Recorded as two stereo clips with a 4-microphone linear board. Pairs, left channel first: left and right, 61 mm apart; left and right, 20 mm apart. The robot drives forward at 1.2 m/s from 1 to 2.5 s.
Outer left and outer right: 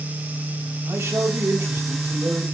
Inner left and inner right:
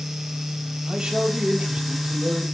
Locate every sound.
0.9 s a man speaking: 45° right (ahead or behind), 2 m; by 2.4 s 35° right (ahead or behind), 2.5 m